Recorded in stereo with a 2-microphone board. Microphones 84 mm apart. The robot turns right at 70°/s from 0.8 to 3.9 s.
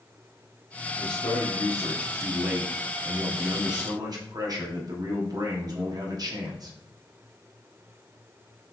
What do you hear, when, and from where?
1.0 s a man speaking: 85° left, 1.0 m; by 6.8 s 70° right, 1.0 m